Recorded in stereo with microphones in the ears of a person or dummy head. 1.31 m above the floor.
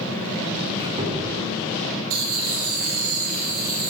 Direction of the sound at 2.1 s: 80° right.